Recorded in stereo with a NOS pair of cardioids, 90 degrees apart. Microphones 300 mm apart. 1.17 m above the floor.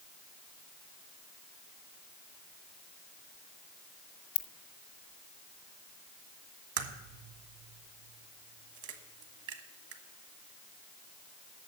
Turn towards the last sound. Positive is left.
turn(degrees=-70)